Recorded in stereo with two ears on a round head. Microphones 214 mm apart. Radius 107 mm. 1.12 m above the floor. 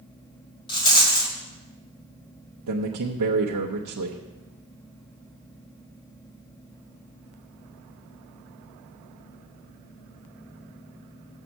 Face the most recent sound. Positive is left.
turn(degrees=-85)